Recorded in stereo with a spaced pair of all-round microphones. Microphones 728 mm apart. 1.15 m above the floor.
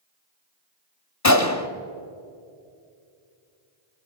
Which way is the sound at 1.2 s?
25° left (ahead or behind).